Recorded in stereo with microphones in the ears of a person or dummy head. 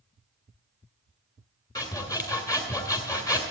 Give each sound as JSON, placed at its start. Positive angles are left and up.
{"t": 1.8, "sound": "sawing", "side_deg": 15, "distance_m": 1.9}